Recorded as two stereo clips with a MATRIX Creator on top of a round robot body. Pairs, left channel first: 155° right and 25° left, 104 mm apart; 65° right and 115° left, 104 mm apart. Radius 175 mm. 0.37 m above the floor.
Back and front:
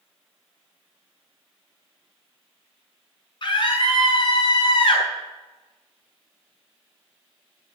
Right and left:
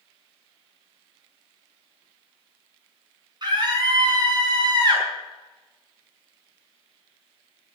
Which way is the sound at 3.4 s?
160° left.